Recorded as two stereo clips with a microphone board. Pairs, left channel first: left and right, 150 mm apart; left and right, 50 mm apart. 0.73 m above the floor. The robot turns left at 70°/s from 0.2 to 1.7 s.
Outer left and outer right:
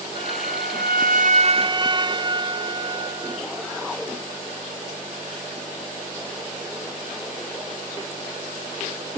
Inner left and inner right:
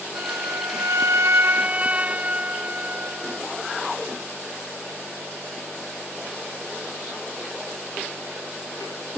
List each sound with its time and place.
0.1 s a flute: 45° right; by 3.8 s 150° right